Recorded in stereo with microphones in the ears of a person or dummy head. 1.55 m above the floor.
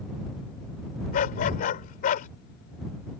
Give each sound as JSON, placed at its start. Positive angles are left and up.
{"t": 1.1, "sound": "a dog barking", "side_deg": 45}